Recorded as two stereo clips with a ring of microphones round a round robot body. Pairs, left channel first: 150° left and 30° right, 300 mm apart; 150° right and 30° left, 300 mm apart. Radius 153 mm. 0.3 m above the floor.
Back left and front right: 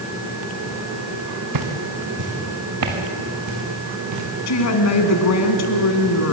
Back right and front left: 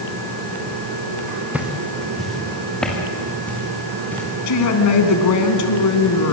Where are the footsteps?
55° right, 2.5 m; by 4.3 s 65° right, 6 m.